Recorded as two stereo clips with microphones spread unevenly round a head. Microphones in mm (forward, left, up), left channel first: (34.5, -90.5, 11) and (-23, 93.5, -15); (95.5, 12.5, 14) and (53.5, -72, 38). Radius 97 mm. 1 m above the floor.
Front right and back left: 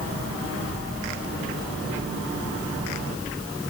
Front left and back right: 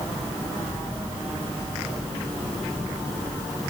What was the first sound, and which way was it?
Only background noise.